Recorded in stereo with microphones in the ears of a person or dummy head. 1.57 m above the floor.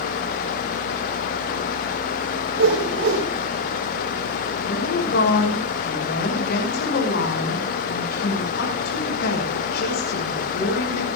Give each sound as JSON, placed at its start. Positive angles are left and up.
{"t": 2.5, "sound": "a whoosh", "side_deg": -80, "distance_m": 5.5}
{"t": 4.7, "sound": "a woman speaking", "side_deg": 55, "distance_m": 5.5}